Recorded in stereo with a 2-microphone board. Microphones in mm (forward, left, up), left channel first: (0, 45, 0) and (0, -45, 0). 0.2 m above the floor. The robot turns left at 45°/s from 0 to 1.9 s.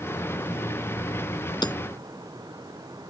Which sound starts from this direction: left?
Hammering, at 1.6 s.